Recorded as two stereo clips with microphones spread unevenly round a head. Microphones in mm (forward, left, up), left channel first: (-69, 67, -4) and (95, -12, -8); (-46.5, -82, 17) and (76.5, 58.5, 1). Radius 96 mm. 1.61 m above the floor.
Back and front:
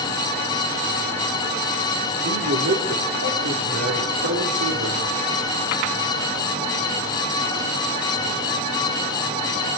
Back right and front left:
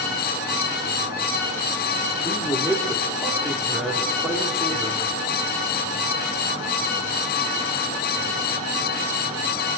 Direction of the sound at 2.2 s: 40° right.